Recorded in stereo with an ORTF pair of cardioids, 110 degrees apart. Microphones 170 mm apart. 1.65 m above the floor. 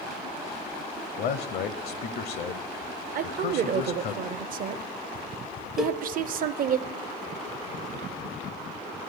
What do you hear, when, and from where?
1.2 s a man speaking: 65° left, 0.7 m
3.1 s a woman speaking: 55° right, 0.7 m
5.8 s a cowbell: 5° right, 0.5 m